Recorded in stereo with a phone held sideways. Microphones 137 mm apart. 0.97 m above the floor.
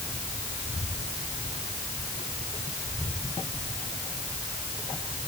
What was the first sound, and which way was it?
Only background noise.